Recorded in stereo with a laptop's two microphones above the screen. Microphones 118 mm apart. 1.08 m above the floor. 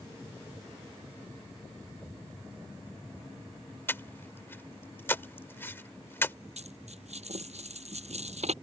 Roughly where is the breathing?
Centre.